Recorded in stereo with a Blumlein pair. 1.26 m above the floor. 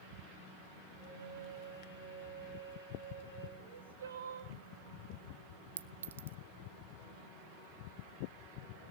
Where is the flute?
65° left, 6 m.